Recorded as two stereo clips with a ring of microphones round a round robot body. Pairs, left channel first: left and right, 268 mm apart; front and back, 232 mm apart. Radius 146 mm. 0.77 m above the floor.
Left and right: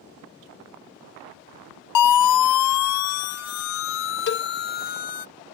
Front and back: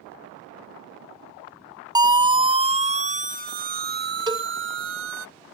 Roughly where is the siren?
Left.